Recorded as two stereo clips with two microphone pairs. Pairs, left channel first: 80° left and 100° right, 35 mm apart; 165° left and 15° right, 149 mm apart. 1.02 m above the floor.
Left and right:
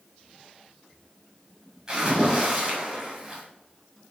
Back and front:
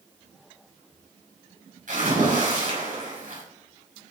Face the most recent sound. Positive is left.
turn(degrees=-35)